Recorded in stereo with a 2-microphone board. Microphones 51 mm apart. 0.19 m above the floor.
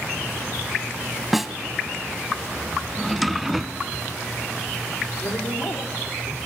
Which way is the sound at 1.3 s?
5° right (ahead or behind).